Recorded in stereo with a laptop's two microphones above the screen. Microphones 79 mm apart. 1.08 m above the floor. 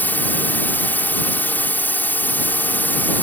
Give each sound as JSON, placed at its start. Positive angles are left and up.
{"t": 0.0, "sound": "a drone", "side_deg": 25}